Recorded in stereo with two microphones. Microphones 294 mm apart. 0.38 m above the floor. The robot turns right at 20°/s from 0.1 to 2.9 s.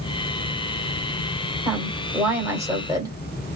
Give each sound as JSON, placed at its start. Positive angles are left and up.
{"t": 1.6, "sound": "a woman speaking", "side_deg": 0, "distance_m": 1.5}